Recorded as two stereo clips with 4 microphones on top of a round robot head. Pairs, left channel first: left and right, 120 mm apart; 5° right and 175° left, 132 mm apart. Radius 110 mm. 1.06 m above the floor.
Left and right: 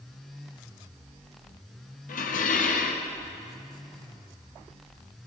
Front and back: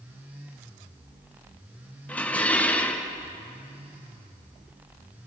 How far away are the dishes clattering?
About 0.9 m.